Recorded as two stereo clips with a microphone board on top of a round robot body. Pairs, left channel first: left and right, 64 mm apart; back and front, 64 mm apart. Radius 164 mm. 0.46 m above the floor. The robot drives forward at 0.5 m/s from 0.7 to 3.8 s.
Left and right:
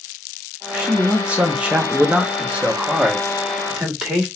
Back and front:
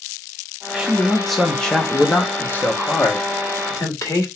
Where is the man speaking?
50° right, 1.3 m; by 4.3 s 165° right, 1.8 m.